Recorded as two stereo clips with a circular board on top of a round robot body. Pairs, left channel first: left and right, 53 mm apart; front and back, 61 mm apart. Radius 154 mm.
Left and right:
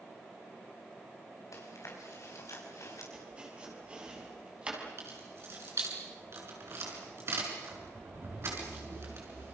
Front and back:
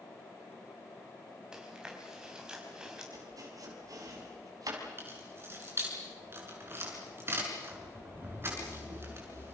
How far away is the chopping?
About 5.5 m.